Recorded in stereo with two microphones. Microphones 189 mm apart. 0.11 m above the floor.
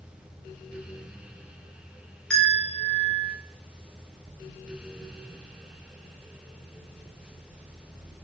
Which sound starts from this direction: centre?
A bell, at 2.3 s.